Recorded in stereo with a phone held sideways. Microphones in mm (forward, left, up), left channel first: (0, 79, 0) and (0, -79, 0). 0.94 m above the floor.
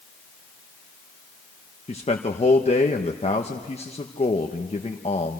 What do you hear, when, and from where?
1.9 s a man speaking: 40° left (ahead or behind), 1.1 m